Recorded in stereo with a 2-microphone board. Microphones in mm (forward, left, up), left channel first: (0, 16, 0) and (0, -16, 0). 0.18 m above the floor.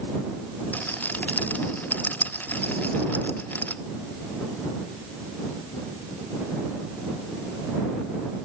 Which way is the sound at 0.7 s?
55° left (ahead or behind).